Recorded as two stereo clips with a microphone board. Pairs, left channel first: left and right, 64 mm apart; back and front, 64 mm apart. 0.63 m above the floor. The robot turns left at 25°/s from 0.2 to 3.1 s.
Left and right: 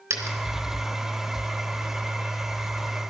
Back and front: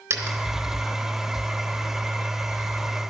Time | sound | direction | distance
0.1 | a dropped coin | 40° right | 3 m